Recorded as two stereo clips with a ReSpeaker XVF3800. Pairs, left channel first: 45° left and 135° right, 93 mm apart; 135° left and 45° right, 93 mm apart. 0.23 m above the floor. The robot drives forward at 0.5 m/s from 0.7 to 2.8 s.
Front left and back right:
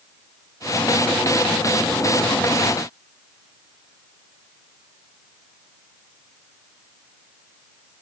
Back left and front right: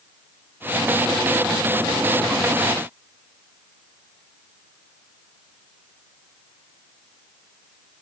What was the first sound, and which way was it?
Only background noise.